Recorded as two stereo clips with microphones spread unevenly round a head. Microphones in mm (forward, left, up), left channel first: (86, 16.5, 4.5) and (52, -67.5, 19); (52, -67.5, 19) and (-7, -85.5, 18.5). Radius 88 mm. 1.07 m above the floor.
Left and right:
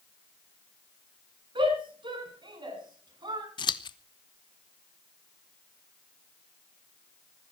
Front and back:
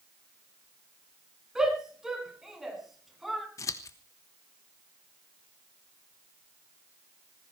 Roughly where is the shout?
Right.